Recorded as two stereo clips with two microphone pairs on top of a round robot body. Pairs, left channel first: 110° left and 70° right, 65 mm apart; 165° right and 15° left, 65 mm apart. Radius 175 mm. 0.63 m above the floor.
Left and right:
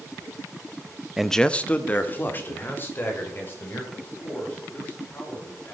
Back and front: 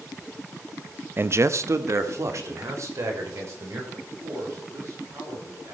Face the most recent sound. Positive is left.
turn(degrees=50)